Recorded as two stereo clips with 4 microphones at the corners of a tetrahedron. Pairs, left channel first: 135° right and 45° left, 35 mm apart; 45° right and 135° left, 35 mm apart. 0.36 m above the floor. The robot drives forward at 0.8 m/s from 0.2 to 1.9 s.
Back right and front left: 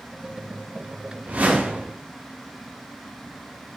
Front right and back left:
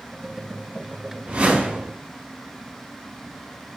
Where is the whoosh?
95° left, 1.9 m; by 1.9 s 110° left, 2 m.